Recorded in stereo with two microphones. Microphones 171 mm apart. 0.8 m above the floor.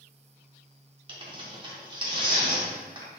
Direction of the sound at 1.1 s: 30° right (ahead or behind).